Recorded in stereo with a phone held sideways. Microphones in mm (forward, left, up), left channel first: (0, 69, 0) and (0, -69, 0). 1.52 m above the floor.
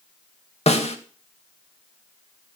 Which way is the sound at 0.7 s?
55° left (ahead or behind).